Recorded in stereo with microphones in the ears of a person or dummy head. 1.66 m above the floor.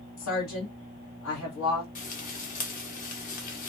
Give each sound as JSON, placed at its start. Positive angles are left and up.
{"t": 0.2, "sound": "a woman speaking", "side_deg": 75, "distance_m": 1.7}
{"t": 1.9, "sound": "frying", "side_deg": 45, "distance_m": 0.7}